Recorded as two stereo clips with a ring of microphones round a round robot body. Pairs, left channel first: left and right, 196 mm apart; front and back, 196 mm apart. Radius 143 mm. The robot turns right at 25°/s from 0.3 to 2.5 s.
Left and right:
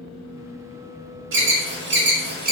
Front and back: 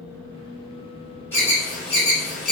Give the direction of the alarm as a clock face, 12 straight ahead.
3 o'clock.